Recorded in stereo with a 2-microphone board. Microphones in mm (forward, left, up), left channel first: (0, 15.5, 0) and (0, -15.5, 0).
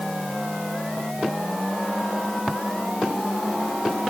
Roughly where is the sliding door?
No sliding door in this recording.